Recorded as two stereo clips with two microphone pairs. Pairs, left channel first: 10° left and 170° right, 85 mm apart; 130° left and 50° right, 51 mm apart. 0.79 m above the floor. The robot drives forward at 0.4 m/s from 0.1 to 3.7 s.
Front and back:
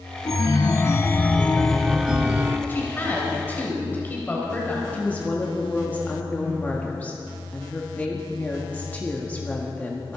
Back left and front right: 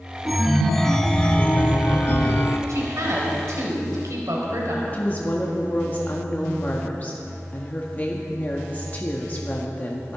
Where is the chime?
40° left, 0.9 m; by 2.6 s 130° left, 0.8 m.